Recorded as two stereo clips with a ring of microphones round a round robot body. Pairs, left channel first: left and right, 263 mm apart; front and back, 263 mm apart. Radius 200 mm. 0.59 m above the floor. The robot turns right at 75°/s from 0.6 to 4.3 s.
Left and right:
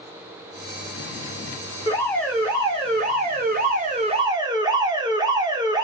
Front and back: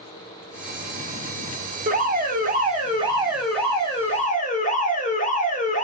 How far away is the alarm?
About 2 m.